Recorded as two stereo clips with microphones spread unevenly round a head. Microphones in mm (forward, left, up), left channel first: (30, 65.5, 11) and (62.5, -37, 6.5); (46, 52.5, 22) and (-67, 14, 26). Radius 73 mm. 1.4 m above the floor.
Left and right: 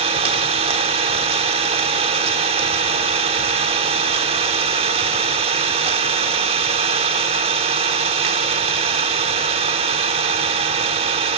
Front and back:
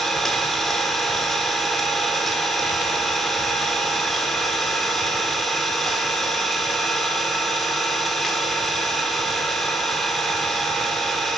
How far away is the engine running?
About 1.4 m.